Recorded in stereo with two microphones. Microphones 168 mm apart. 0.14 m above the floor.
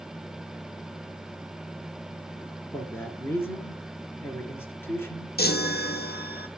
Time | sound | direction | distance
2.7 | a man speaking | 15° left (ahead or behind) | 2.5 m
5.4 | a chime | 70° left (ahead or behind) | 1.1 m